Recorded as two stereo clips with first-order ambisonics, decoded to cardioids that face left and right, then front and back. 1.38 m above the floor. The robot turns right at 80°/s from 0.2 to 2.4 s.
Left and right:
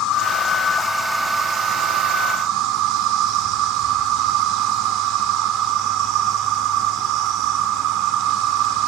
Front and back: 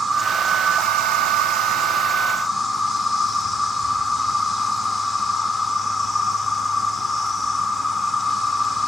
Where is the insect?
105° left, 1.7 m; by 8.9 s 80° right, 1.7 m.